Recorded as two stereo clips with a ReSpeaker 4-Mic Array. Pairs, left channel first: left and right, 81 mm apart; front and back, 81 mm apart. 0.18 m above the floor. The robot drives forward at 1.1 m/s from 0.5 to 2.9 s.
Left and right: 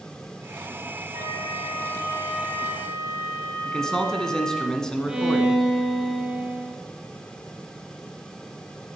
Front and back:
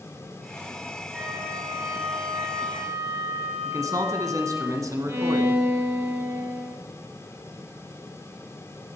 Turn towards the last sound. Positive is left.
turn(degrees=-160)